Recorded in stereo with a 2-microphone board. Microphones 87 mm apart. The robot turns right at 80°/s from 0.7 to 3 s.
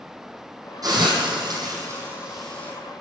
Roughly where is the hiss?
Right.